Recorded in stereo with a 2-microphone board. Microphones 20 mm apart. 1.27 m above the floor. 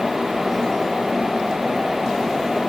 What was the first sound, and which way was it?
Only background noise.